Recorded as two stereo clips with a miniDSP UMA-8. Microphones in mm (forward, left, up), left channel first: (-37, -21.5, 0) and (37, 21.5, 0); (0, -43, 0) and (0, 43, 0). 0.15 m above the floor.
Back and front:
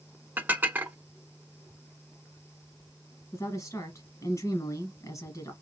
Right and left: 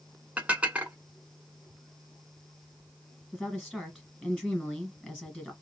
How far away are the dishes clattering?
About 0.8 m.